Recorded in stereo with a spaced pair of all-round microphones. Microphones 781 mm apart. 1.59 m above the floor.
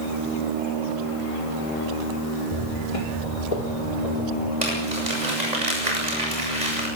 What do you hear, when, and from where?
2.5 s footsteps: 35° left (ahead or behind), 2.5 m; by 4.5 s 60° left (ahead or behind), 4 m
4.6 s crumpling: 60° right (ahead or behind), 8.5 m